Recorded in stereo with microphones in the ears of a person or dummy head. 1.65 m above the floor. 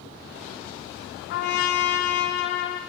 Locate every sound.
1.3 s a trumpet: 60° left (ahead or behind), 1.3 m